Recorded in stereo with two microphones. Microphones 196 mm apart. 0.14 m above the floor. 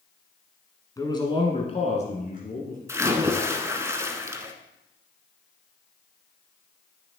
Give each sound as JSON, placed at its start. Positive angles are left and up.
{"t": 1.0, "sound": "a man speaking", "side_deg": 20, "distance_m": 1.5}
{"t": 2.9, "sound": "a splash", "side_deg": -15, "distance_m": 0.8}